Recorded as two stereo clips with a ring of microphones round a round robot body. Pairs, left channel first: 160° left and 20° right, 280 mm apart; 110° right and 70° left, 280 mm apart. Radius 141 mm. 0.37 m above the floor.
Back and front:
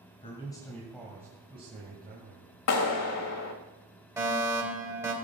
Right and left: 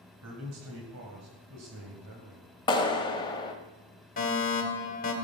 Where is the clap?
175° left, 1.6 m.